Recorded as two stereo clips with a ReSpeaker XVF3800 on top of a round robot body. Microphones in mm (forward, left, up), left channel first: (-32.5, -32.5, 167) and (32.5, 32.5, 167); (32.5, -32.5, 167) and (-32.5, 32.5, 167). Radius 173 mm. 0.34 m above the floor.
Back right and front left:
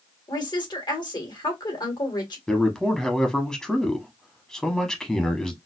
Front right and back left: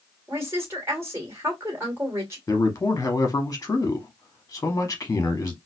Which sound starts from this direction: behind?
A woman speaking, at 0.3 s.